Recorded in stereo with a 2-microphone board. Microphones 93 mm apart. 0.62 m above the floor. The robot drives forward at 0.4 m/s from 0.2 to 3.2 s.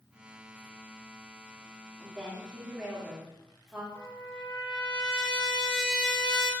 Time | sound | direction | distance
2.0 | a woman speaking | 10° right (ahead or behind) | 1.3 m
4.0 | a trumpet | 60° left (ahead or behind) | 1.2 m